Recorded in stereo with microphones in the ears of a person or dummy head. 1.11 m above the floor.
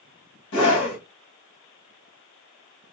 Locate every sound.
0.5 s a scream: 65° left (ahead or behind), 1.4 m